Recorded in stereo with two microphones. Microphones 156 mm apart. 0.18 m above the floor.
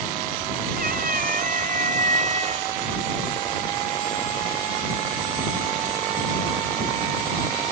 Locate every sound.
0.8 s a cat meowing: 65° right (ahead or behind); by 4.9 s 20° right (ahead or behind)